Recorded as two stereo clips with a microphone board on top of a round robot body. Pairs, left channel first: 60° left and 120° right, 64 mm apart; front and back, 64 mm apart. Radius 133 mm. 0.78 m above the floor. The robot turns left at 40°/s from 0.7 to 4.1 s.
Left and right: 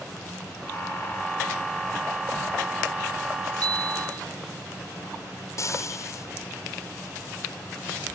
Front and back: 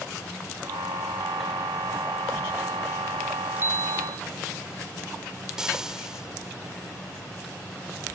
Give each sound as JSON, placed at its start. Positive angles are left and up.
{"t": 3.6, "sound": "a bicycle bell", "azimuth_deg": -125}
{"t": 5.6, "sound": "frying", "azimuth_deg": 100}